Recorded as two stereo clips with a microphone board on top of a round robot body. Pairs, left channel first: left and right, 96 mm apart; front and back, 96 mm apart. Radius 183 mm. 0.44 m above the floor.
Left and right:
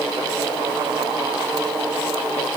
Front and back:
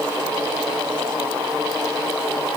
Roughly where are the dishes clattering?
I don't hear dishes clattering.